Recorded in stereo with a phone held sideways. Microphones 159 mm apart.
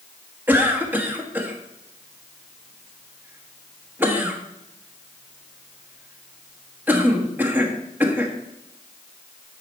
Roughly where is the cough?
Centre.